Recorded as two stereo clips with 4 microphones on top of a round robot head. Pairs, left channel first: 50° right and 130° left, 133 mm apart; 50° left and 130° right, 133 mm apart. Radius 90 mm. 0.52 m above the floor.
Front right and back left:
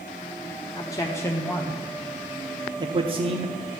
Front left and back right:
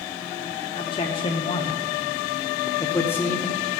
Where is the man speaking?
5° left, 1.3 m; by 3.5 s 130° left, 1.1 m.